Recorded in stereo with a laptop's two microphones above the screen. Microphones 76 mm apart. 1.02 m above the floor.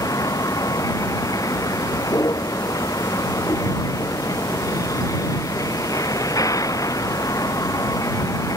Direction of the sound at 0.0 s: 50° left (ahead or behind).